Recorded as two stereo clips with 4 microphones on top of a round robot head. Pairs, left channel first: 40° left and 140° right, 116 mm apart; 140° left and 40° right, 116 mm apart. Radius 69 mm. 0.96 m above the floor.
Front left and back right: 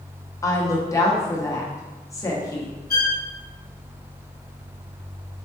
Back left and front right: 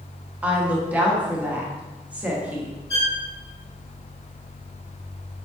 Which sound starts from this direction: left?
A violin, at 2.9 s.